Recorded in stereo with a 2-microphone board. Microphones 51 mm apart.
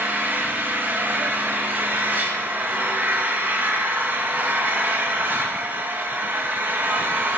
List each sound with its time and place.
0.0 s an engine running: 40° right (ahead or behind), 2.5 m